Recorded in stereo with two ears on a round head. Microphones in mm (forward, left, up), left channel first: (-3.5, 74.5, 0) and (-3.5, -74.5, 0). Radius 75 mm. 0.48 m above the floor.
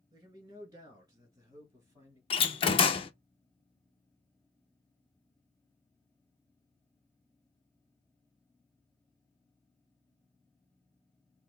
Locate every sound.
0.1 s a man speaking: 25° right (ahead or behind), 2.5 m; by 2.2 s 15° right (ahead or behind), 3.5 m
2.3 s a door slam: 35° left (ahead or behind), 0.5 m